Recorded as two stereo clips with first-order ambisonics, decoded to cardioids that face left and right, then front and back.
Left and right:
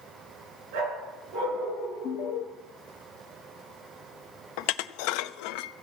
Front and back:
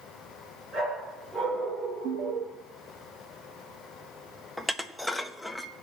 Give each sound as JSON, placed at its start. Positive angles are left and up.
{"t": 0.7, "sound": "a dog barking", "azimuth_deg": -105, "distance_m": 5.5}
{"t": 2.0, "sound": "an alarm", "azimuth_deg": 135, "distance_m": 0.7}
{"t": 4.6, "sound": "dishes clattering", "azimuth_deg": 85, "distance_m": 0.6}